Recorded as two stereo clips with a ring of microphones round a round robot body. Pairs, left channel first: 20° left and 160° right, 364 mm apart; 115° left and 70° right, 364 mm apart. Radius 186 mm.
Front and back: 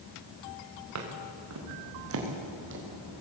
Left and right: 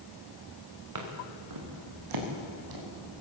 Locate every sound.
0.9 s footsteps: 110° right, 5 m; by 3.2 s 95° right, 5.5 m